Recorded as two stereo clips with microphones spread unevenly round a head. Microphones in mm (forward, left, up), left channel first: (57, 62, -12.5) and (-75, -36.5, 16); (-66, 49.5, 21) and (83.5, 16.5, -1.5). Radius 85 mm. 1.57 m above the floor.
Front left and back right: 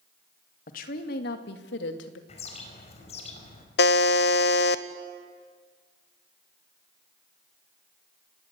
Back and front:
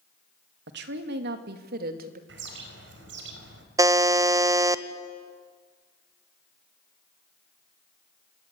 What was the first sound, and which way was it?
A woman speaking, 10° right.